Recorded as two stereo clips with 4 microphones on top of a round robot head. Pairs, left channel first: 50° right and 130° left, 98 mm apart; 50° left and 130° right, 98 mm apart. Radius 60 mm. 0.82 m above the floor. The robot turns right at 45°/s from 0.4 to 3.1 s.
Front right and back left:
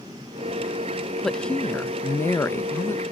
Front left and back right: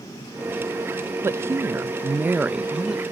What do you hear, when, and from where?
1.2 s a woman speaking: 125° right; by 3.0 s 45° right